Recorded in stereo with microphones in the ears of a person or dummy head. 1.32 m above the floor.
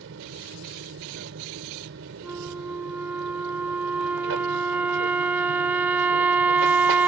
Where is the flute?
10° right (ahead or behind).